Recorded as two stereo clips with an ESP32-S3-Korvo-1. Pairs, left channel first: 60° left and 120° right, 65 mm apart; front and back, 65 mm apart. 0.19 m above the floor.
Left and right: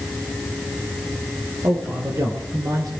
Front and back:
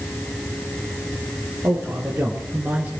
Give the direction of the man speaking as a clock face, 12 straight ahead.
4 o'clock.